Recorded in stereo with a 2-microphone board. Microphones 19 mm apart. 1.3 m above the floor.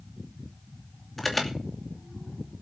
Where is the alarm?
10° left (ahead or behind), 2.5 m.